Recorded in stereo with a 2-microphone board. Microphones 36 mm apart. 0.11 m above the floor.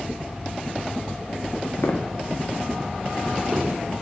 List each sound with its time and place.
1.8 s footsteps: 85° left, 0.6 m; by 3.7 s 15° right (ahead or behind), 1.1 m